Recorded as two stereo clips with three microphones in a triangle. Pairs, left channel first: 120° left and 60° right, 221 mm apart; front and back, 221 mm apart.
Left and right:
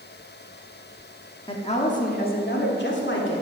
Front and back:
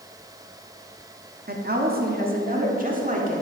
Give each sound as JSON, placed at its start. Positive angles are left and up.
{"t": 1.5, "sound": "a woman speaking", "azimuth_deg": 175, "distance_m": 1.4}